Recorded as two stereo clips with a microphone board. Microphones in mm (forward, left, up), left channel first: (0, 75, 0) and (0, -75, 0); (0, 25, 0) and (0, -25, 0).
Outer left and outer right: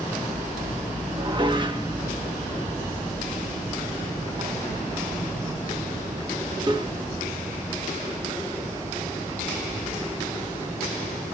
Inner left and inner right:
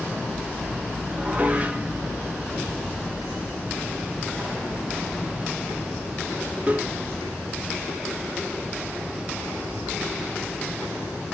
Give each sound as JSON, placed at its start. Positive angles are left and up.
{"t": 1.1, "sound": "dishes clattering", "side_deg": -30, "distance_m": 1.1}